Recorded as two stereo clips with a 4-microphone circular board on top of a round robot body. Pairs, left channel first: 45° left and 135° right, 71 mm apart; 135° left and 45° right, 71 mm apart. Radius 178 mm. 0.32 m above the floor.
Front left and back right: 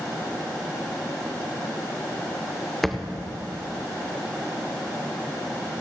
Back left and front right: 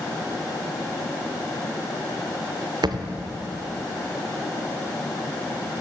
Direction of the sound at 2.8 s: 40° right.